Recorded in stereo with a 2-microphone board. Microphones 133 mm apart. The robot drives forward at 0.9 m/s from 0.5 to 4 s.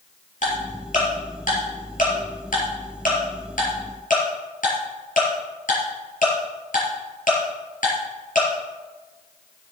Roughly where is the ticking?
Left.